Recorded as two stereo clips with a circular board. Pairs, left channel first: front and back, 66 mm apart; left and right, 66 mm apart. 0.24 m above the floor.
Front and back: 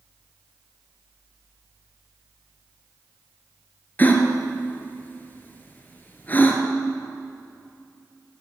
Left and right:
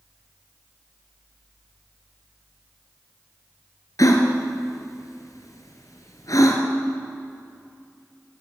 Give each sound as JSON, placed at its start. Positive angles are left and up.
{"t": 4.0, "sound": "a gasp", "azimuth_deg": 60, "distance_m": 2.0}